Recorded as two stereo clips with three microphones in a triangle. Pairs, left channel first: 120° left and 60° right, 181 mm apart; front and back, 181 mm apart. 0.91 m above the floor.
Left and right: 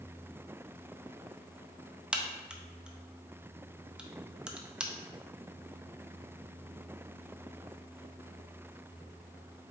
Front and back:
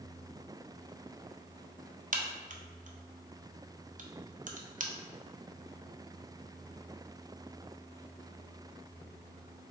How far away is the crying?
No crying in this recording.